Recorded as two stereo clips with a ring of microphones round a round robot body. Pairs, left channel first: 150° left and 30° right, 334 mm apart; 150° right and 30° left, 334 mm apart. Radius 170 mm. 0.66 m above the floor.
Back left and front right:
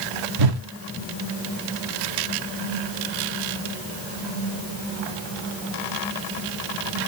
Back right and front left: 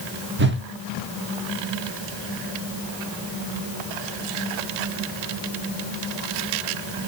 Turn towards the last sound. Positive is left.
turn(degrees=-25)